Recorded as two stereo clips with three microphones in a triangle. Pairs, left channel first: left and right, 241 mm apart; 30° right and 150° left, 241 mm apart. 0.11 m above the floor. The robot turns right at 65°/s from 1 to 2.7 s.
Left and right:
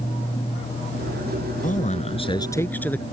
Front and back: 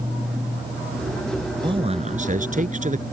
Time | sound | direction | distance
1.6 | a man speaking | 95° left | ?